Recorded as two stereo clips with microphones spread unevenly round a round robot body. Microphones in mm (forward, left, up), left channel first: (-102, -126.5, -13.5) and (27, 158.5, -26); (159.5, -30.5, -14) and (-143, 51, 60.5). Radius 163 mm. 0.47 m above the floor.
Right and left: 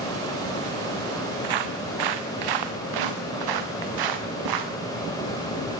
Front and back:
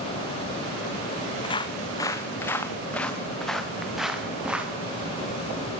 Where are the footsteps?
60° left, 2 m; by 4.7 s 80° left, 3.5 m.